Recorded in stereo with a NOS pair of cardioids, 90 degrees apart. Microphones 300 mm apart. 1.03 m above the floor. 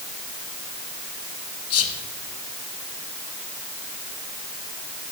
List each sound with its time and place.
1.7 s whispering: 55° left, 0.9 m